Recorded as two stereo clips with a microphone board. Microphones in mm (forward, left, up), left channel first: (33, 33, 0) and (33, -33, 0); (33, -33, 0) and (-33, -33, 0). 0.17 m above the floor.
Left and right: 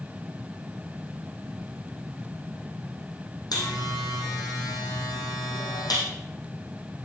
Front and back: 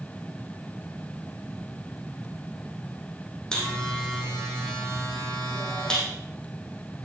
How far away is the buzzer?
About 4.5 m.